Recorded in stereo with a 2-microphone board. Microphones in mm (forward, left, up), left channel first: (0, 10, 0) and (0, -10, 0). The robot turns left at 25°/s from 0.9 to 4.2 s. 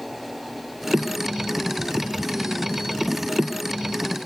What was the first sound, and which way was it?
Only background noise.